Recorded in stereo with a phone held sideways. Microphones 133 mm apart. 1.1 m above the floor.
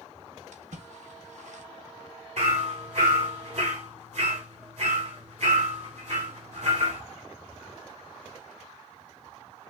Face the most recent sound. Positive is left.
turn(degrees=-60)  # may be behind; listen again after turning